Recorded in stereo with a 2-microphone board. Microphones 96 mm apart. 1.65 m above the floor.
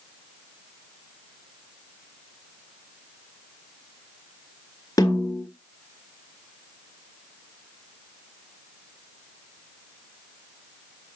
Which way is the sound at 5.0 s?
35° left (ahead or behind).